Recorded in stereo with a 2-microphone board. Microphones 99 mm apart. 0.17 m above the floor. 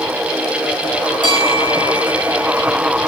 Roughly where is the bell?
Right.